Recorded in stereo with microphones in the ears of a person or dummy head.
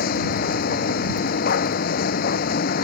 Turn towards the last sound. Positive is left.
turn(degrees=45)  # may be behind; listen again after turning